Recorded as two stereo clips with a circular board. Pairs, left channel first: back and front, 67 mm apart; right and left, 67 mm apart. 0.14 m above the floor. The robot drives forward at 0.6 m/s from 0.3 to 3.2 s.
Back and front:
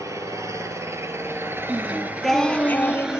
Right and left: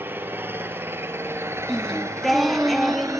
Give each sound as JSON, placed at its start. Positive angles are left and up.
{"t": 0.0, "sound": "an engine running", "azimuth_deg": 35, "distance_m": 2.5}
{"t": 1.7, "sound": "singing", "azimuth_deg": -5, "distance_m": 0.8}